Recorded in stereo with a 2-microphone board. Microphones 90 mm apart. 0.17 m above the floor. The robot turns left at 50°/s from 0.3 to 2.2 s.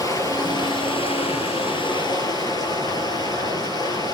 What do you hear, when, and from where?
0.0 s running water: 140° left, 3.5 m; by 4.1 s 45° left, 3.5 m